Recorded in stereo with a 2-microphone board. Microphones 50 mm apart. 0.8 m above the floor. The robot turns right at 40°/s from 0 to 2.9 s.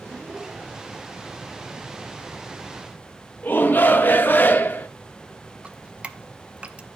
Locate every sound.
3.4 s a shout: 40° left (ahead or behind), 0.9 m
5.6 s dripping: 25° right (ahead or behind), 0.6 m